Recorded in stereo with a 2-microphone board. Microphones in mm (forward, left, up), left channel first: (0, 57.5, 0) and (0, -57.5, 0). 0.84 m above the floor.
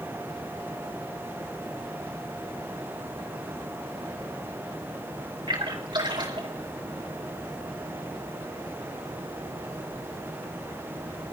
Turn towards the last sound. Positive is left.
turn(degrees=-40)  # may be behind; listen again after turning